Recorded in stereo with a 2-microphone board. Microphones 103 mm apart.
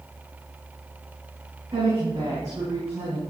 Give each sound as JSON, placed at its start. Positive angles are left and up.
{"t": 1.7, "sound": "a woman speaking", "side_deg": -40, "distance_m": 6.5}